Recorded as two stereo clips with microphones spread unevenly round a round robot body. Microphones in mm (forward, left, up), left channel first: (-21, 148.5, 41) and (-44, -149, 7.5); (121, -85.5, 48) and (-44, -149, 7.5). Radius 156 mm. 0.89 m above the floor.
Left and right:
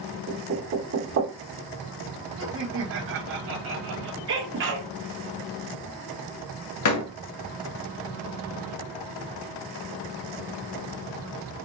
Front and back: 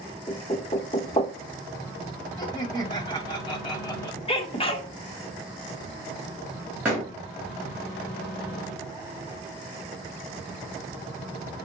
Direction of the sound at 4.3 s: 45° right.